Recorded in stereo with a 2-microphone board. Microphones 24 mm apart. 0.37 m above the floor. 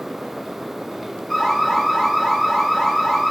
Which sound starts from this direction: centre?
An alarm, at 1.3 s.